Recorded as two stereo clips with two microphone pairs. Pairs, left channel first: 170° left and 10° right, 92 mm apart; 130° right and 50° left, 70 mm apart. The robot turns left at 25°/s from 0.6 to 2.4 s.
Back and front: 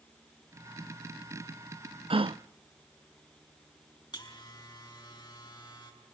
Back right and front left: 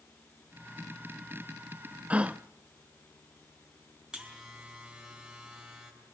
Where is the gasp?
20° right, 0.5 m; by 2.4 s 25° right, 0.5 m.